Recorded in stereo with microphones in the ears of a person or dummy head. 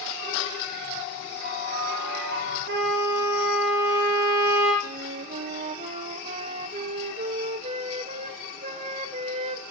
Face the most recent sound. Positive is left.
turn(degrees=-35)  # may be behind; listen again after turning